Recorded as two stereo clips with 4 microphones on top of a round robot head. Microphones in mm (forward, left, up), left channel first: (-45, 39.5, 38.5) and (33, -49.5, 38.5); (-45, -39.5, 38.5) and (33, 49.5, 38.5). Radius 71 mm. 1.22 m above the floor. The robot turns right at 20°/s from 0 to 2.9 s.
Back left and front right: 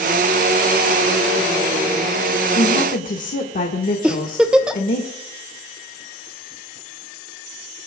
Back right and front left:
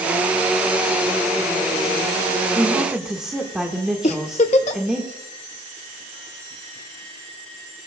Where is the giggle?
130° right, 0.7 m.